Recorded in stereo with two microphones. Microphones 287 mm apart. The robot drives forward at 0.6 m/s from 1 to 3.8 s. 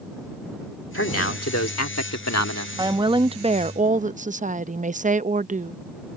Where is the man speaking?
50° left (ahead or behind); by 2.7 s 70° left (ahead or behind).